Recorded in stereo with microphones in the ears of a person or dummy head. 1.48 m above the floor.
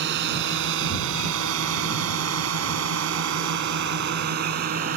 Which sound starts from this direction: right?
A drone, at 0.0 s.